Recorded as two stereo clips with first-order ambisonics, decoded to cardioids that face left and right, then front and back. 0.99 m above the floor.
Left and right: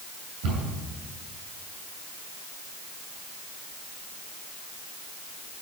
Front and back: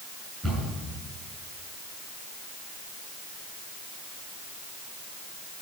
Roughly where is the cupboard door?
Right.